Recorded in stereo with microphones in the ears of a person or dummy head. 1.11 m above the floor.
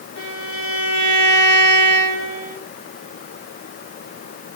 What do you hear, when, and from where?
0.2 s a violin: 85° left, 7 m